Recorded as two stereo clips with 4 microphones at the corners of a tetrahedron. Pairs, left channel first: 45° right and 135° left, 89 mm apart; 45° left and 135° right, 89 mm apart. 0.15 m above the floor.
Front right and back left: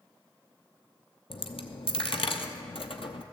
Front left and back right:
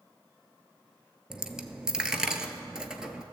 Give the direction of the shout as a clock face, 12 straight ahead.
I don't hear a shout.